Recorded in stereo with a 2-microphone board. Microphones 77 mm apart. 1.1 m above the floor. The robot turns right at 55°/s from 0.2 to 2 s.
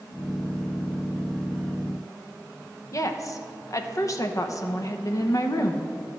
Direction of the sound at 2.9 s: 45° left (ahead or behind).